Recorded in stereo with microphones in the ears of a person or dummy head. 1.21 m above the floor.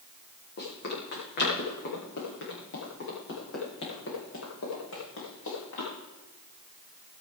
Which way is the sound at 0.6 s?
55° left (ahead or behind).